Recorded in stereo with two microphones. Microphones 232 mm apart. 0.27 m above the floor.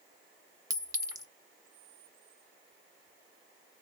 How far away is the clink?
About 0.6 m.